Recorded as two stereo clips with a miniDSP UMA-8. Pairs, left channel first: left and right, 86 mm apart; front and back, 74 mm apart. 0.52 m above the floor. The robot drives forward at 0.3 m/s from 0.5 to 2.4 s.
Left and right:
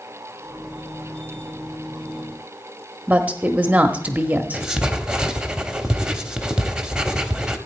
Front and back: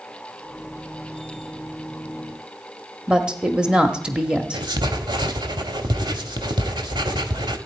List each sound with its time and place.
3.1 s a woman speaking: 125° right, 0.7 m
4.5 s writing: 170° right, 0.9 m